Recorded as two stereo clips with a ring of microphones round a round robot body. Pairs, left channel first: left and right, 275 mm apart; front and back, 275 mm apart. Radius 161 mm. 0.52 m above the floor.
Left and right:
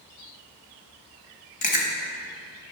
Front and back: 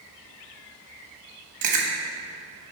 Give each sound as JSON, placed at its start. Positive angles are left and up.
{"t": 1.6, "sound": "chewing", "azimuth_deg": 150, "distance_m": 1.2}